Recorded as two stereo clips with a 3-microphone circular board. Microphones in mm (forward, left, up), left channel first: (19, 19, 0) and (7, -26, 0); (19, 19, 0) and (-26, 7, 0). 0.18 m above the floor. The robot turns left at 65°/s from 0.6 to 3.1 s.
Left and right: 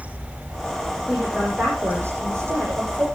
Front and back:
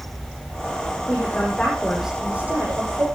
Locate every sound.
1.1 s a woman speaking: 20° right, 8.5 m; by 3.1 s 150° right, 8.5 m